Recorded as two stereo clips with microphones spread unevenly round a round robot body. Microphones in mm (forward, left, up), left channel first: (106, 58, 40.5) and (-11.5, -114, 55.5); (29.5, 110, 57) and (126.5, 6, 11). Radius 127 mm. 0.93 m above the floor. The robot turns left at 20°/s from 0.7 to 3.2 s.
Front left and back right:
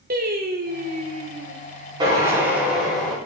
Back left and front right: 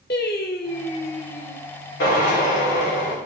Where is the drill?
165° left, 4.5 m; by 3.2 s 140° left, 4.5 m.